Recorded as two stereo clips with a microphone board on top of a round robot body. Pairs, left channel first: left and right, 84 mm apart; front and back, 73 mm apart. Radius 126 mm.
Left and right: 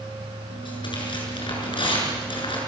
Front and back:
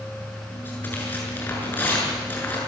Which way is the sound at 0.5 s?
65° left.